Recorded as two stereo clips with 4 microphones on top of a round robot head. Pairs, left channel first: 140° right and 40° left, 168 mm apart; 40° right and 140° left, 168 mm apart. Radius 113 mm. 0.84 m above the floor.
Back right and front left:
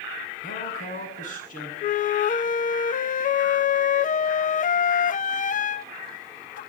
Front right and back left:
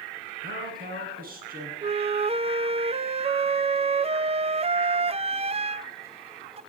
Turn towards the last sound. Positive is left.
turn(degrees=-170)